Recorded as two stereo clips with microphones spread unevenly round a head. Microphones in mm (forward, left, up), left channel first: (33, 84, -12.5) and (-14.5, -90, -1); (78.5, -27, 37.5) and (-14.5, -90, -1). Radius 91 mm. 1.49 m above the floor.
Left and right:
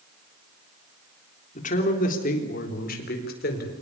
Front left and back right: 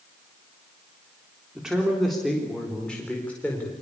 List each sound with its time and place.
1.6 s a man speaking: 125° left, 3.5 m; by 3.7 s 115° left, 4.5 m